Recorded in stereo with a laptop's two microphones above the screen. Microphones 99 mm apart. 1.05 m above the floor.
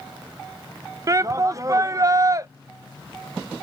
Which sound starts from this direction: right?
A shout, at 1.1 s.